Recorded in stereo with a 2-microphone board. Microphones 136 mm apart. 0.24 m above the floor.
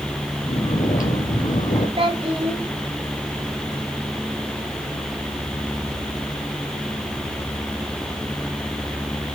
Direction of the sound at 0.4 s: 75° left (ahead or behind).